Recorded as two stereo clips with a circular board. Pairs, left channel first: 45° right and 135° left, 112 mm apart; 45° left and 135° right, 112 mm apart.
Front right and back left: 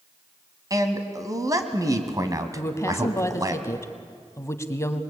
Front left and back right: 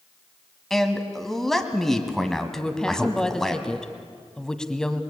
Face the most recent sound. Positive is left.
turn(degrees=-30)